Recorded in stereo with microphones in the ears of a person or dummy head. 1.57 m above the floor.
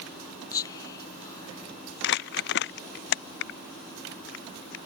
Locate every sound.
0.5 s whispering: 25° left (ahead or behind)
2.0 s crumpling: 55° left (ahead or behind)